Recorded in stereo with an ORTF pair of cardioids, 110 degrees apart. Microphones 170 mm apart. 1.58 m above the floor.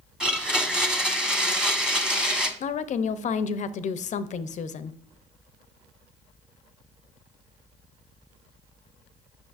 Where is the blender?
5° right, 1.1 m.